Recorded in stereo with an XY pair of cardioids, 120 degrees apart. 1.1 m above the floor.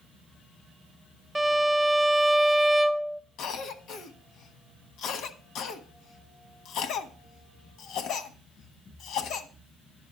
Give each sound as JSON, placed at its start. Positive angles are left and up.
{"t": 1.4, "sound": "a violin", "azimuth_deg": -10, "distance_m": 0.6}
{"t": 3.4, "sound": "a cough", "azimuth_deg": 65, "distance_m": 1.2}